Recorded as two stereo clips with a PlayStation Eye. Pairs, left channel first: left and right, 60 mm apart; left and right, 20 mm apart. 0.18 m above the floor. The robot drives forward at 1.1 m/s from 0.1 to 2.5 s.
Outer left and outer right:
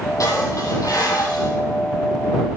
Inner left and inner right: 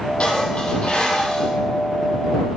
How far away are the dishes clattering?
About 4 m.